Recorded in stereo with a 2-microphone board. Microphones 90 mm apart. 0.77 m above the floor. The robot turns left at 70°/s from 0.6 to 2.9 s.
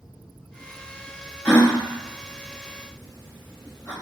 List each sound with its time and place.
1.4 s a gasp: 15° left (ahead or behind), 1.1 m; by 3.9 s 40° left (ahead or behind), 1.1 m